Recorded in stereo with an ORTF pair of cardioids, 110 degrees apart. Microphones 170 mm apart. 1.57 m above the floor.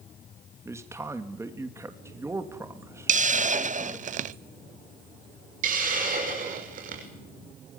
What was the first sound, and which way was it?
A man speaking, 15° right.